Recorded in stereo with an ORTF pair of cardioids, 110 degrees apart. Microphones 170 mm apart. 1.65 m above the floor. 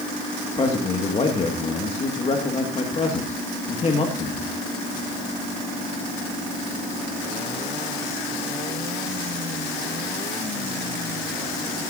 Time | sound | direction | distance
0.6 | a man speaking | 35° left | 2 m